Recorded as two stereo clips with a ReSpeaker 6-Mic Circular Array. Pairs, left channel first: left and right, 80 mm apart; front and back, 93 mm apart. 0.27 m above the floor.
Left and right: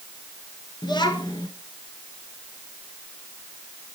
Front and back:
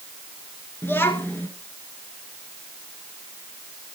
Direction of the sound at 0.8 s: 65° left.